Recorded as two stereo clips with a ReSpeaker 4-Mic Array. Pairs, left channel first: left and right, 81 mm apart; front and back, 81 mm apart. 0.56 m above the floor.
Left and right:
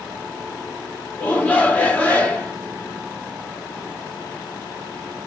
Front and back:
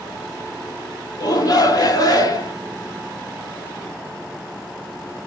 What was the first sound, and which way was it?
A shout, 20° left.